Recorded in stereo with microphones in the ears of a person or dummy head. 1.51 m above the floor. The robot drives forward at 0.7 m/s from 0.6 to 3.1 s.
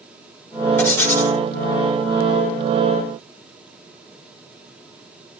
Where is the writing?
15° left (ahead or behind), 5.5 m.